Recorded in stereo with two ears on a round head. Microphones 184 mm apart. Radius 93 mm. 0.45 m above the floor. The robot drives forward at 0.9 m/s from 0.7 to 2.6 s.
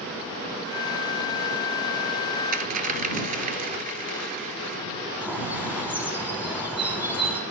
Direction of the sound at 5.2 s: 10° right (ahead or behind).